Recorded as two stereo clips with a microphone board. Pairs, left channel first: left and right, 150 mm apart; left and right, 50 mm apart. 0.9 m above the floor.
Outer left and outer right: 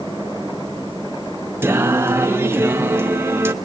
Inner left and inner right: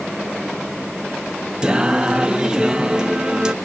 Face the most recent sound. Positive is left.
turn(degrees=-15)  # may be behind; listen again after turning